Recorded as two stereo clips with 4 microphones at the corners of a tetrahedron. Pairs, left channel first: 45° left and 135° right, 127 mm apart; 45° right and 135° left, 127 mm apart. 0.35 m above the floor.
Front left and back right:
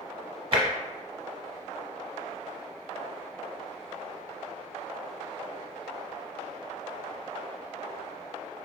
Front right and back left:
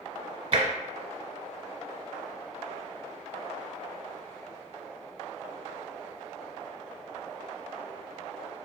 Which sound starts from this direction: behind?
Tapping, at 0.5 s.